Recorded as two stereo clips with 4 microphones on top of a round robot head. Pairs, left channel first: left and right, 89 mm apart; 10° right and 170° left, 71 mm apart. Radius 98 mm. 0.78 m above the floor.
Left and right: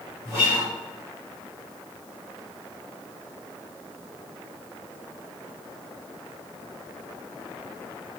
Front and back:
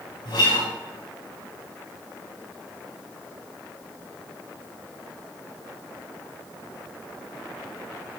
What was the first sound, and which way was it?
A guitar, 25° right.